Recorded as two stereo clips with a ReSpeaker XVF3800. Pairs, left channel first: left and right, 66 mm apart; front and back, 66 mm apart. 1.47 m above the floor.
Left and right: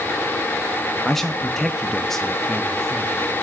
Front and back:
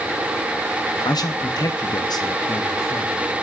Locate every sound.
1.1 s a man speaking: 5° left, 0.6 m